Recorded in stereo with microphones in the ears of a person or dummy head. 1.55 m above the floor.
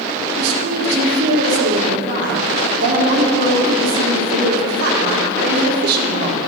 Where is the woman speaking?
60° right (ahead or behind), 1.4 m.